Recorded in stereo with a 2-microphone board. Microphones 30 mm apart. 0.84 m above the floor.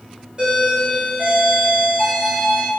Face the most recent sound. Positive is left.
turn(degrees=-25)  # may be behind; listen again after turning